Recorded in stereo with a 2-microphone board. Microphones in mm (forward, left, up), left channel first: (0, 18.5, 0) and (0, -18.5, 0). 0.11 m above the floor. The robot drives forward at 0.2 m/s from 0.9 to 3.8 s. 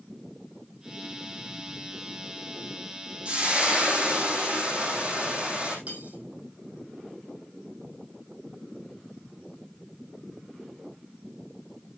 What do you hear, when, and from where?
3.2 s frying: 40° right (ahead or behind), 3 m; by 5.8 s 35° right (ahead or behind), 3 m
5.9 s cutlery clinking: 40° right (ahead or behind), 2.5 m